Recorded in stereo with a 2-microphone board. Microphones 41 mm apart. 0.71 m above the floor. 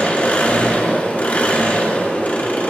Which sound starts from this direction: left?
An engine running, at 0.0 s.